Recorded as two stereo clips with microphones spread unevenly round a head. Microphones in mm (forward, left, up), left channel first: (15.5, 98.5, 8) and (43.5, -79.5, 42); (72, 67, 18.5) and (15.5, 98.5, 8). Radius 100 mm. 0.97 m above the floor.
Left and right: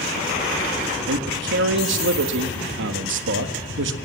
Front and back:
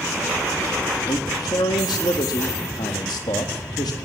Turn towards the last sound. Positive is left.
turn(degrees=-70)